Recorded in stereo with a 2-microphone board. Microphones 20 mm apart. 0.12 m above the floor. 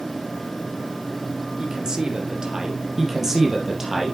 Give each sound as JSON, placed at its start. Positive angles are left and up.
{"t": 1.6, "sound": "a man speaking", "side_deg": -35, "distance_m": 2.5}
{"t": 3.0, "sound": "a man speaking", "side_deg": -15, "distance_m": 2.5}